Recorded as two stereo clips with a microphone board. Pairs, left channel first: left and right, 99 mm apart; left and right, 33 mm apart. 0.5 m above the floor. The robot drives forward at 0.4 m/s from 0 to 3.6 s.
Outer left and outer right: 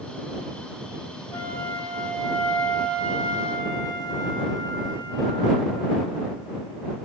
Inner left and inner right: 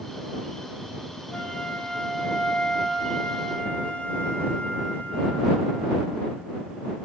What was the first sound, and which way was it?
A flute, 35° left (ahead or behind).